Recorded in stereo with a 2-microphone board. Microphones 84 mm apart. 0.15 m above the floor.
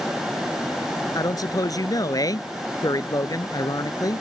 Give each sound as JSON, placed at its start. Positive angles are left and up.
{"t": 1.1, "sound": "a man speaking", "side_deg": 50}